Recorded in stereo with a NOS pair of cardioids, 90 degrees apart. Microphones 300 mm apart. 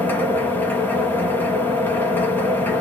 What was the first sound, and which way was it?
A machine running, 5° left.